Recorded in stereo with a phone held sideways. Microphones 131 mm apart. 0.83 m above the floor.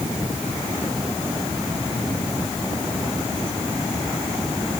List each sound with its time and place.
Only background noise.